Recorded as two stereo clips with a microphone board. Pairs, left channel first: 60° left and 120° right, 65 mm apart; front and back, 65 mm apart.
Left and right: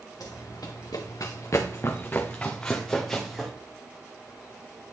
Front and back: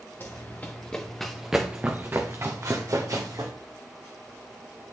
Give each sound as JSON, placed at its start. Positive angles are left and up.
{"t": 0.2, "sound": "running footsteps", "azimuth_deg": 55, "distance_m": 1.7}